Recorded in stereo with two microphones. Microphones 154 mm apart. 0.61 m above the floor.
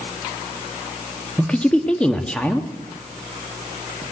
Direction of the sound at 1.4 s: 5° left (ahead or behind).